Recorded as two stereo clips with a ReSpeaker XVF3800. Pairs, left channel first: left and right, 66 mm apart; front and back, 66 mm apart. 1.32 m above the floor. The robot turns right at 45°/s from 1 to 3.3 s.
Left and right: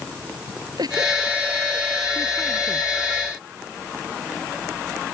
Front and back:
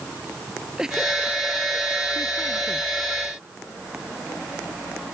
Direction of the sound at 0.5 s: 100° right.